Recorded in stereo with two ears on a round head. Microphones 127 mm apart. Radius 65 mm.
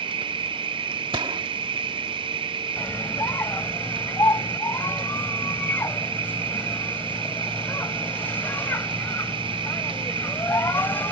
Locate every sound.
0.0 s an insect: 35° right (ahead or behind)
1.1 s a gunshot: 35° right (ahead or behind)
2.8 s a scream: 15° left (ahead or behind)